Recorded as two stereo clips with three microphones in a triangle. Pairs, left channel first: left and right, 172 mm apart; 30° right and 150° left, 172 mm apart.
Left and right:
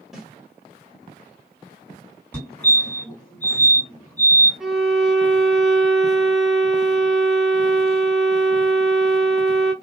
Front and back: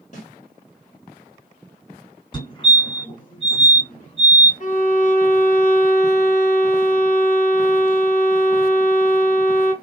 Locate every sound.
0.1 s a snare drum: 5° right, 2.0 m
2.3 s a fire alarm: 15° left, 2.5 m
4.6 s a violin: 5° right, 1.0 m